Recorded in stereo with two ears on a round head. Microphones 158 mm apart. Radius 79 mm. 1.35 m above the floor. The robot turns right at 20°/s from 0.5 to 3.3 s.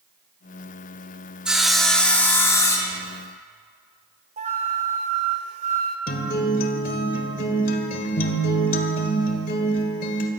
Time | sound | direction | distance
1.4 | sawing | 5° right | 1.9 m
4.4 | a flute | 40° right (ahead or behind) | 1.9 m
6.1 | a guitar | 50° left (ahead or behind) | 1.7 m